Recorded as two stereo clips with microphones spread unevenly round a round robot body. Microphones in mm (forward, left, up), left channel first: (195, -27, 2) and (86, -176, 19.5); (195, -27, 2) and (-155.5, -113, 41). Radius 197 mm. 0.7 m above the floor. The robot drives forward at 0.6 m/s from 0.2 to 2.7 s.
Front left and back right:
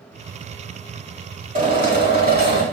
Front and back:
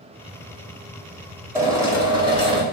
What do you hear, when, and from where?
1.6 s a drill: 85° right, 5 m; by 2.6 s 90° right, 5 m